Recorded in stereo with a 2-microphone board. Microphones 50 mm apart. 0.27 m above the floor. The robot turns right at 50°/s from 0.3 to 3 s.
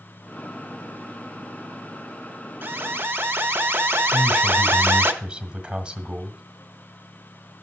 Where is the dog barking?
I don't hear a dog barking.